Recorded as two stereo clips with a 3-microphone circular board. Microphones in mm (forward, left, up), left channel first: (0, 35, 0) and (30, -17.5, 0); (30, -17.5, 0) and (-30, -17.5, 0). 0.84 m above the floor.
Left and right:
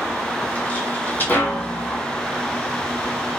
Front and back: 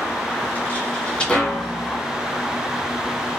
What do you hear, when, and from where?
0.4 s footsteps: 55° left, 1.8 m; by 2.0 s 85° left, 1.3 m